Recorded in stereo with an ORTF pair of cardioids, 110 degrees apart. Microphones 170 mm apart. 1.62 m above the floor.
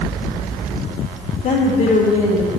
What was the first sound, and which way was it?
A woman speaking, 50° left.